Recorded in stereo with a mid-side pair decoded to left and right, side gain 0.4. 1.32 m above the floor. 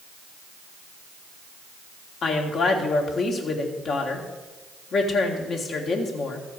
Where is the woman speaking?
65° left, 2.0 m.